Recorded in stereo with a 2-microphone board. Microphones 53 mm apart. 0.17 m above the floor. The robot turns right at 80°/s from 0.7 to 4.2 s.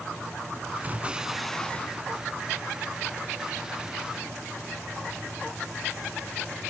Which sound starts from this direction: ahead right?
An explosion, at 0.8 s.